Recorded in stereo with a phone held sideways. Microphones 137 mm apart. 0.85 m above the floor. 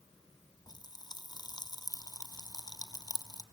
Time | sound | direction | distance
0.7 | a pop | 30° left (ahead or behind) | 1.1 m